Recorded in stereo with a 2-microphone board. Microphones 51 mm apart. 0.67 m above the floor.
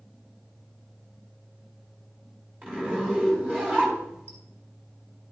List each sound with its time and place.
2.6 s a zipper: 25° right (ahead or behind), 4.5 m